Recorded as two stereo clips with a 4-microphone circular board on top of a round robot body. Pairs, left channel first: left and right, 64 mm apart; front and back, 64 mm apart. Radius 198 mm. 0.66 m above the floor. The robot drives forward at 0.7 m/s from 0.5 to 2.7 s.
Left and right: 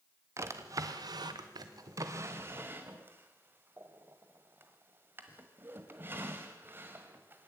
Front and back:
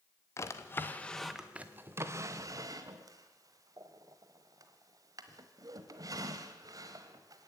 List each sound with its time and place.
0.4 s a drawer: 45° right, 0.8 m; by 7.5 s 150° right, 1.2 m